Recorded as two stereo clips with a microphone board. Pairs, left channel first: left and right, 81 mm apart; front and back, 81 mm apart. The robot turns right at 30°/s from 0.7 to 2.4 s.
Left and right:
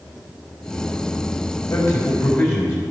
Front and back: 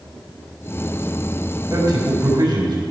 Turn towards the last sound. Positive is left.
turn(degrees=150)